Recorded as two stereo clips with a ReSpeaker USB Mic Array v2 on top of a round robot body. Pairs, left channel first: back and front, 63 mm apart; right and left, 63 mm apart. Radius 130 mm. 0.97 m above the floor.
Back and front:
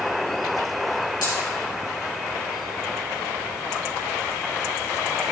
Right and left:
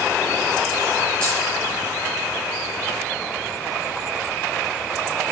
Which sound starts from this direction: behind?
A dropped coin, at 1.2 s.